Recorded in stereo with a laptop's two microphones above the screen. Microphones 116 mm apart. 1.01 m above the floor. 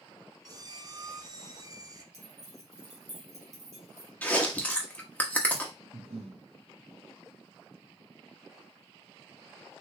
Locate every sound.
0.5 s a squeak: 35° right (ahead or behind), 0.5 m
2.1 s keys jangling: 85° right, 1.4 m
4.2 s chewing: 15° left (ahead or behind), 0.9 m
5.9 s breathing: 75° right (ahead or behind), 1.3 m